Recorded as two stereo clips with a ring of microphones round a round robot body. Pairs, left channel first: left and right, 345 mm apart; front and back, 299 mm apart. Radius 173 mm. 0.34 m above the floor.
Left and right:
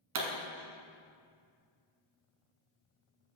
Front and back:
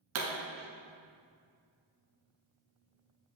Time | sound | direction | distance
0.1 | a pop | 130° right | 1.2 m